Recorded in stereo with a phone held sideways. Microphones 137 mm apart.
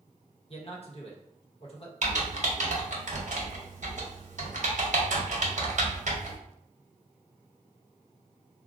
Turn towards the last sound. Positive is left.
turn(degrees=-65)  # may be behind; listen again after turning